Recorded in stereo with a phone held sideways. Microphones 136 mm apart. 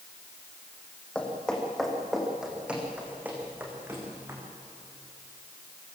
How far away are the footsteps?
About 4.5 m.